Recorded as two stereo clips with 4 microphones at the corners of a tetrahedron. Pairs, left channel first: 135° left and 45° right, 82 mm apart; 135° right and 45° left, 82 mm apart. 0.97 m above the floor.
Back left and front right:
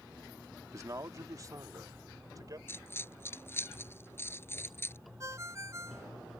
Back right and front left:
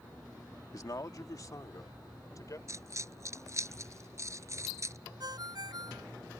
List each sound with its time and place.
0.7 s a man speaking: 95° right; by 2.6 s 90° right
2.7 s a dropped coin: 80° left
5.2 s a ringtone: 10° left